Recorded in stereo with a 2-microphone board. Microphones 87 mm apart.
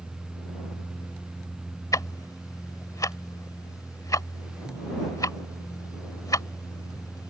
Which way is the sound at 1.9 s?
45° left (ahead or behind).